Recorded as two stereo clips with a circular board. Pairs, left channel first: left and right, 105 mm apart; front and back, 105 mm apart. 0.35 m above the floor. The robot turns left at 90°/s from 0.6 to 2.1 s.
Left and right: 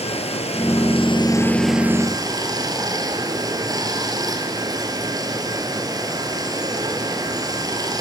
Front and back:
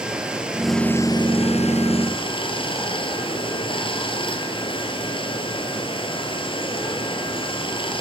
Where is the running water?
100° left, 2.5 m; by 8.0 s 35° right, 2.5 m.